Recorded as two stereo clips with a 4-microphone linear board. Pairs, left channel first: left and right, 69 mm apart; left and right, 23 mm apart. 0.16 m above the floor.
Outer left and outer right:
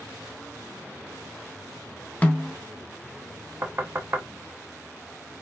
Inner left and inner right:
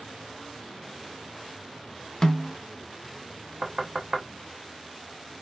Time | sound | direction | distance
2.2 | a snare drum | 20° left (ahead or behind) | 0.6 m
3.6 | knocking | 30° right (ahead or behind) | 0.7 m